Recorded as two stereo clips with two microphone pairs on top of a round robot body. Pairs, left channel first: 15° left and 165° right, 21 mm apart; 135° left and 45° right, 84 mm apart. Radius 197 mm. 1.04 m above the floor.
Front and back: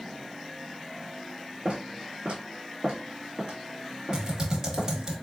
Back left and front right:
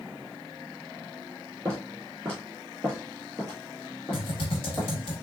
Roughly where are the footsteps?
Right.